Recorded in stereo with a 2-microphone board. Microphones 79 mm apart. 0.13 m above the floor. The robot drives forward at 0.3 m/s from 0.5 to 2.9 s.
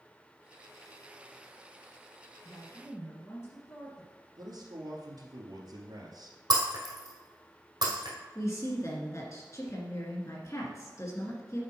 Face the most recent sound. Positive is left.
turn(degrees=40)  # may be behind; listen again after turning